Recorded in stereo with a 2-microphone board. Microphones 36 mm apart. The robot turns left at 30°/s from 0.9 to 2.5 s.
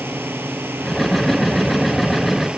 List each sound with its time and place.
0.0 s a drone: 85° right; by 2.6 s 35° right (ahead or behind)